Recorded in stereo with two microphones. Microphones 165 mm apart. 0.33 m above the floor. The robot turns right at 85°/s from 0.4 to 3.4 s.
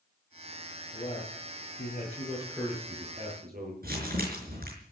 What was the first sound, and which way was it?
A man speaking, 35° left.